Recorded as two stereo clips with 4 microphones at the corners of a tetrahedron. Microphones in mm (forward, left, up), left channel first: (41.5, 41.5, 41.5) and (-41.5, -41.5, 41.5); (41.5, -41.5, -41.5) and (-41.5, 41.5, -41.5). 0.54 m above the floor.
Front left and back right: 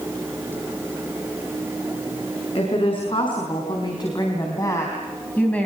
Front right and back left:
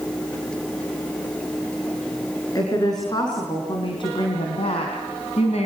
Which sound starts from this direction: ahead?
A woman speaking, at 2.5 s.